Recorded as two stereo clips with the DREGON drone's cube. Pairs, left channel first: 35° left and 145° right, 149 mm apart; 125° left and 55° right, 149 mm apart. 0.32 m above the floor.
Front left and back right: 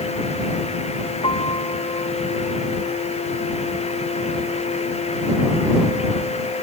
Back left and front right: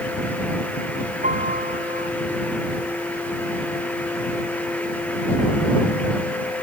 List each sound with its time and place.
1.2 s a piano: 20° right